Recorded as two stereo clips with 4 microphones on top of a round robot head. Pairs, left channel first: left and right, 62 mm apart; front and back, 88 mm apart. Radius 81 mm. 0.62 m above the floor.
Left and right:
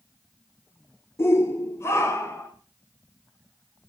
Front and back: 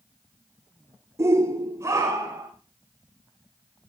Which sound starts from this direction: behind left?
A shout, at 1.2 s.